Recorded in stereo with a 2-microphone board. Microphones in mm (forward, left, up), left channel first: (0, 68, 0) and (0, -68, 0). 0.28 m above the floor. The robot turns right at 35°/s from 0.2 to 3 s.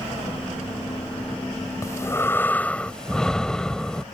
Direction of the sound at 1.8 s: 25° left (ahead or behind).